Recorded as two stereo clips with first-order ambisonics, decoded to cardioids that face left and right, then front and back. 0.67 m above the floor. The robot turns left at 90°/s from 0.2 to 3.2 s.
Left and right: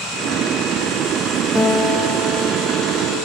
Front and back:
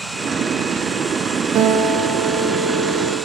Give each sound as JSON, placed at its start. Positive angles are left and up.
{"t": 1.6, "sound": "a guitar", "azimuth_deg": 170, "distance_m": 0.9}